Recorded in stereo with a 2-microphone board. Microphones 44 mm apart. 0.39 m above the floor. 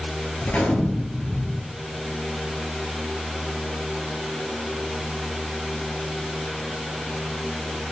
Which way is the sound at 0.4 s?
35° left (ahead or behind).